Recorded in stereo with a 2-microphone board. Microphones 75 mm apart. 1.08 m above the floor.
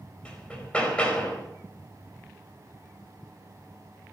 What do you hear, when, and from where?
0.2 s hammering: 15° left (ahead or behind), 4.5 m